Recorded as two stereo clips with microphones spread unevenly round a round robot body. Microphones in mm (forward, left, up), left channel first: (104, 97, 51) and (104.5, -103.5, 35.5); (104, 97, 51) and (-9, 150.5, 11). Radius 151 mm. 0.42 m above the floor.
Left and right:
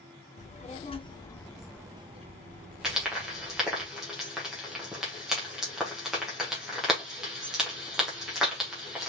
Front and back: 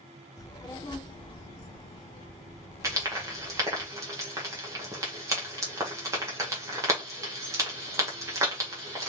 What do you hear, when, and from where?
0.4 s a child speaking: 50° left, 1.3 m; by 3.8 s 110° right, 1.9 m
2.8 s frying: 170° right, 1.2 m